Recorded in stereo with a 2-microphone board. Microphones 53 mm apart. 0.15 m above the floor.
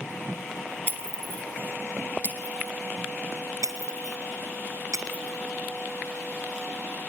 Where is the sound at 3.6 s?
75° right (ahead or behind), 2 m.